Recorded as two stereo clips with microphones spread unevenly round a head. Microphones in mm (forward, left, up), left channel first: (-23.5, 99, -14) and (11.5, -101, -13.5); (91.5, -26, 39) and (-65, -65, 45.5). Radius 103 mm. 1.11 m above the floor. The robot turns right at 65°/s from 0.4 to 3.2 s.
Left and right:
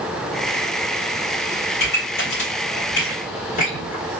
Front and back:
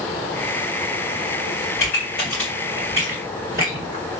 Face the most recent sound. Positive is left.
turn(degrees=150)